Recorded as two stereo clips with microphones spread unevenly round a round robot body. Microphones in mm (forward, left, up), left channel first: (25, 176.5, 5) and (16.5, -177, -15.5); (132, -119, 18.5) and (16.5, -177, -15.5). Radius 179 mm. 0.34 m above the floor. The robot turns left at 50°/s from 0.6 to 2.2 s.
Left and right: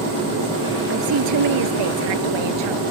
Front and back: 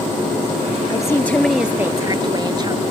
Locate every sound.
0.9 s a woman speaking: 30° right; by 2.8 s 100° right